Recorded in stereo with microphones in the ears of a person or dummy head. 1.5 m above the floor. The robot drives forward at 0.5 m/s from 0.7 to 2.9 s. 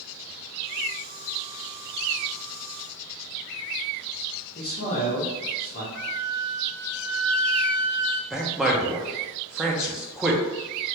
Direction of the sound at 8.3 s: 5° right (ahead or behind).